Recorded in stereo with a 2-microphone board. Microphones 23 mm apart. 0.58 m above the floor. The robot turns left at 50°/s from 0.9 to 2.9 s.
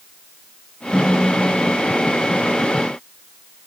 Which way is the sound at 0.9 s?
30° left.